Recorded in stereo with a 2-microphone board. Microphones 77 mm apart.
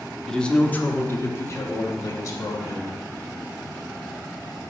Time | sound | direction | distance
0.3 | a man speaking | 5° left (ahead or behind) | 0.7 m